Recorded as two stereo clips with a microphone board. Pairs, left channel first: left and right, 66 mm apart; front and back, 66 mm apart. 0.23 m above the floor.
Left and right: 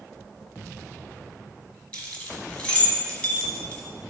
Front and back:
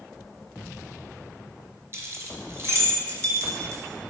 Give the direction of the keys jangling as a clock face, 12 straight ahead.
7 o'clock.